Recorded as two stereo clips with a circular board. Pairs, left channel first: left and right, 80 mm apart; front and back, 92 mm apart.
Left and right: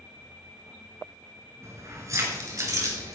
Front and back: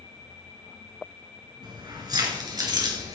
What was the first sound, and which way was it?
Keys jangling, 140° right.